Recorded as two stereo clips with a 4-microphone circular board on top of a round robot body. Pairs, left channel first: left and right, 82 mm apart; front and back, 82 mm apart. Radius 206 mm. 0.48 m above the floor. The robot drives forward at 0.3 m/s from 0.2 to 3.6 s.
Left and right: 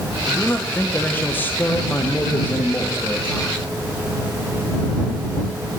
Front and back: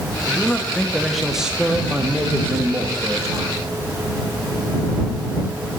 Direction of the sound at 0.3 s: 50° left.